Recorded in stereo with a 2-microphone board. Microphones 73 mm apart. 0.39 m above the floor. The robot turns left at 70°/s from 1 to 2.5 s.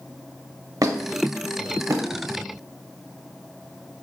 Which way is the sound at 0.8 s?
60° right (ahead or behind).